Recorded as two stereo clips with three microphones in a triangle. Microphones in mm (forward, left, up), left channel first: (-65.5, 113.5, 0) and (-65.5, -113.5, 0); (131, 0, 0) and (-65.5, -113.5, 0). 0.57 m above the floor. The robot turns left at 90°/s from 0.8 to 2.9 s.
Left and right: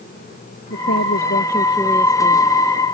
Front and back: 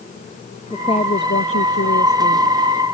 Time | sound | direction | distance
0.7 | a woman speaking | 105° left | ?